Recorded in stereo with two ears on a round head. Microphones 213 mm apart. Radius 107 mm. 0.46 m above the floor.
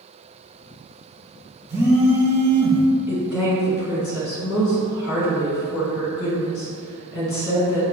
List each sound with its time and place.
1.7 s a phone buzzing: 10° right (ahead or behind), 0.6 m
3.1 s a woman speaking: 60° left (ahead or behind), 1.8 m